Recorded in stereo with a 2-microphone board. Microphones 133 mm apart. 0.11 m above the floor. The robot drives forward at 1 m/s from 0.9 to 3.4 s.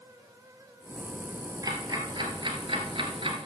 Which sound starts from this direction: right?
Ticking, at 1.6 s.